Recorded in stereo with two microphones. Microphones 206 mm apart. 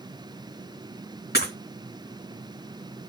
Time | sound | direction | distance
1.3 | breaking glass | 50° left (ahead or behind) | 4.5 m